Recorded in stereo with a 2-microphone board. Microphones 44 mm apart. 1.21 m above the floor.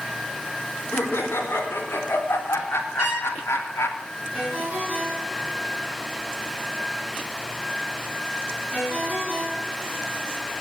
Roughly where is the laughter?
Left.